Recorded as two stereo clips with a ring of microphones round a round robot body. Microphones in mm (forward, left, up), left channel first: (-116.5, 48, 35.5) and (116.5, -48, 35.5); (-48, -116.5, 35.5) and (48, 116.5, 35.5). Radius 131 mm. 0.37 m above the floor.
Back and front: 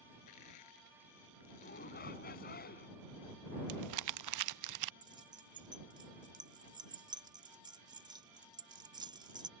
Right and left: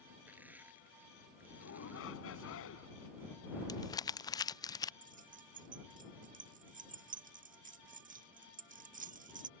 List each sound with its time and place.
0.3 s crushing: 150° left
1.6 s a shout: 150° right
3.7 s crumpling: 35° right
5.0 s keys jangling: 40° left